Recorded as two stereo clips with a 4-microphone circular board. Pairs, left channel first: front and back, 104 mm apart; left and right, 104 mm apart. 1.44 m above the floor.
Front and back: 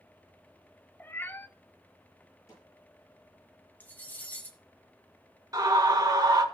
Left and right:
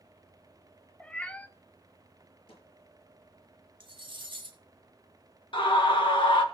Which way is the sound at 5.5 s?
125° left.